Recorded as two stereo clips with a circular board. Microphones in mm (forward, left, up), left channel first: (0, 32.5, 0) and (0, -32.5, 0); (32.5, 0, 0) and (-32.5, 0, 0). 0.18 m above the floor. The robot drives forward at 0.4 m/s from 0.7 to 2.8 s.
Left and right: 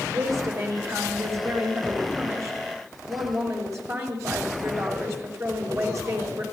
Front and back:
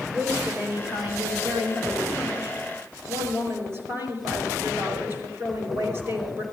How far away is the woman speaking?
About 5 m.